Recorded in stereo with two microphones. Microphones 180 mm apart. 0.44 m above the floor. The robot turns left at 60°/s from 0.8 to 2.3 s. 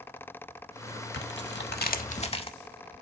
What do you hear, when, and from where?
1.1 s tearing paper: 105° left, 0.6 m; by 2.5 s 35° left, 0.6 m